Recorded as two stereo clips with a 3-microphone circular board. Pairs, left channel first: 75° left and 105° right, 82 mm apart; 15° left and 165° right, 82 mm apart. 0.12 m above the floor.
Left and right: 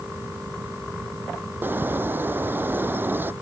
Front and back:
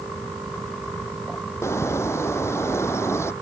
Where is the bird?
40° right.